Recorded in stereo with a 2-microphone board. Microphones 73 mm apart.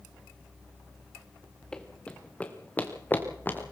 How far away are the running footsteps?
About 2.5 m.